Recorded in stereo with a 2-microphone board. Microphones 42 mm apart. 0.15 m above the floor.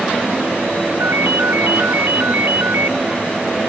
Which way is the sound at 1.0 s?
65° right (ahead or behind).